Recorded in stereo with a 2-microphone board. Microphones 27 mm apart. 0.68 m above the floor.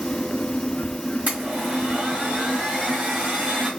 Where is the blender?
65° right (ahead or behind), 1.7 m.